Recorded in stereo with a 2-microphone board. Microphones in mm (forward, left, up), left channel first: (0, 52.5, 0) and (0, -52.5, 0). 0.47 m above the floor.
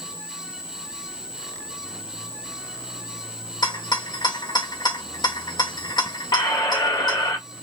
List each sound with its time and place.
3.6 s a rattle: 40° left (ahead or behind), 1.1 m
6.3 s a squeak: 35° left (ahead or behind), 1.1 m